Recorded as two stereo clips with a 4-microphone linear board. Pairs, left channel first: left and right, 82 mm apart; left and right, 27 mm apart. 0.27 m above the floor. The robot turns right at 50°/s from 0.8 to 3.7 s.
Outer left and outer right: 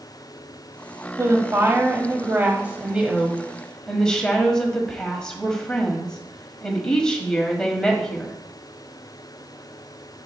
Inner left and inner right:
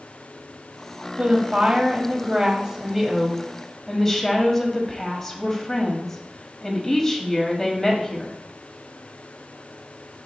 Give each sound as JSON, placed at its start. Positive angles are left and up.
{"t": 1.2, "sound": "a woman speaking", "azimuth_deg": -110, "distance_m": 1.3}